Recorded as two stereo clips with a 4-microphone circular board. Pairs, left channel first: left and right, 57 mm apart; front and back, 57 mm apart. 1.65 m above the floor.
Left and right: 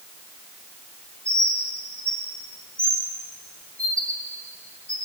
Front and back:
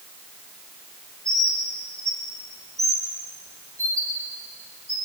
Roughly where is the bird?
Behind left.